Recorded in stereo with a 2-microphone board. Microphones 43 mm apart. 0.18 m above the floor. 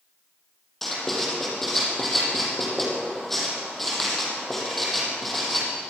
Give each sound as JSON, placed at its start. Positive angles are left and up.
{"t": 0.8, "sound": "writing", "side_deg": 5, "distance_m": 6.5}